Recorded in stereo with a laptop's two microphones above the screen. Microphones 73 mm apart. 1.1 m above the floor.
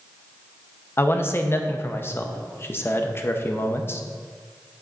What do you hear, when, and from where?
1.0 s a man speaking: 35° left (ahead or behind), 0.6 m